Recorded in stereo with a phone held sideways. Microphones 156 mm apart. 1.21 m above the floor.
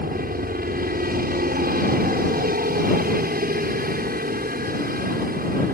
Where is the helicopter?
70° right (ahead or behind).